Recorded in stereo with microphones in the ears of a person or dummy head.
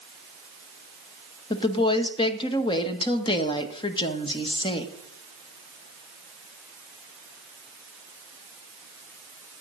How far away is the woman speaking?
About 1.4 m.